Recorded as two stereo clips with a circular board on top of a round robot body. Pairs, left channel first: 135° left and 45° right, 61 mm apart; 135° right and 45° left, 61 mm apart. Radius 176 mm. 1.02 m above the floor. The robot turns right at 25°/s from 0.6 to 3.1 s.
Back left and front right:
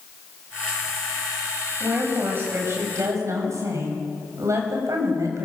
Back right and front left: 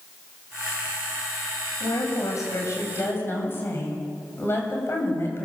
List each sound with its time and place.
1.8 s a woman speaking: 115° right, 7 m; by 5.5 s 85° right, 7 m